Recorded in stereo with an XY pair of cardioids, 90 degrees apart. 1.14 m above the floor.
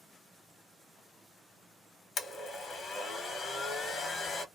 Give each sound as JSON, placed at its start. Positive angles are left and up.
{"t": 2.2, "sound": "a blender", "azimuth_deg": 65, "distance_m": 1.1}